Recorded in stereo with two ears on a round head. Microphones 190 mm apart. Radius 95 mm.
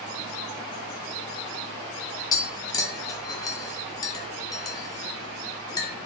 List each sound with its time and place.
2.3 s tapping: 20° left (ahead or behind), 0.5 m